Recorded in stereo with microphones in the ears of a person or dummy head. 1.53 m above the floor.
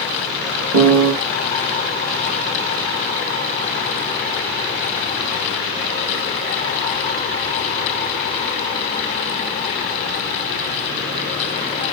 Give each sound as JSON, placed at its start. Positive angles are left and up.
{"t": 0.7, "sound": "a piano", "side_deg": -55, "distance_m": 1.2}